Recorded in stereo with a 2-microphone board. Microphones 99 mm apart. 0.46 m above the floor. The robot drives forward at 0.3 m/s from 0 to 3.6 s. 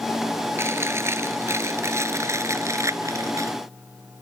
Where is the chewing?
25° right (ahead or behind); by 3.5 s 30° right (ahead or behind).